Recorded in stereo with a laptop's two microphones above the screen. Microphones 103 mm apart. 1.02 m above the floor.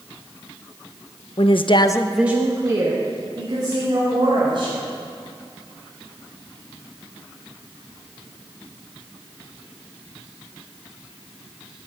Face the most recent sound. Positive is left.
turn(degrees=-45)  # may be behind; listen again after turning